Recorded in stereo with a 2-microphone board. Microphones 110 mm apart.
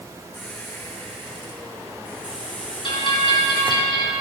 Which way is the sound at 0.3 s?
15° left (ahead or behind).